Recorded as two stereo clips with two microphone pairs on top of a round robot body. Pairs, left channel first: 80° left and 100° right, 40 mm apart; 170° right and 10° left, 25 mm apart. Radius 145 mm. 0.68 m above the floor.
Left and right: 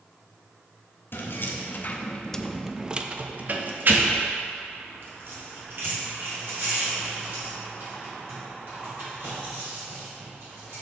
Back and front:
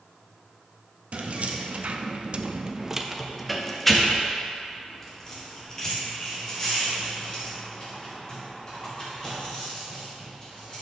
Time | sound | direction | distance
1.1 | keys jangling | 55° left | 0.8 m